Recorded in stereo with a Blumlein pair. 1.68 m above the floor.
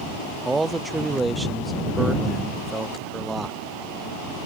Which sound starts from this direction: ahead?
A man speaking, at 0.5 s.